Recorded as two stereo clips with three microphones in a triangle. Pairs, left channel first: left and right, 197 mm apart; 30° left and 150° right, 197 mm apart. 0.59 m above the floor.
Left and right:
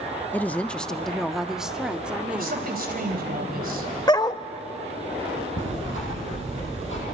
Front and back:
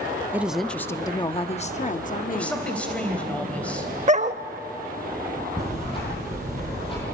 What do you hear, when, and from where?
0.3 s a woman speaking: 150° left, 0.6 m; by 2.7 s 10° right, 1.2 m
2.3 s a woman speaking: 55° right, 3.5 m
4.1 s a dog barking: 160° left, 0.6 m
5.6 s ticking: 95° left, 10 m